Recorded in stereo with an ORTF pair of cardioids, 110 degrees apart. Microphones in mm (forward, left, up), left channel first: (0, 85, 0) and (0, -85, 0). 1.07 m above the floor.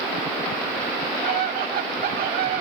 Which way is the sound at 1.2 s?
60° right.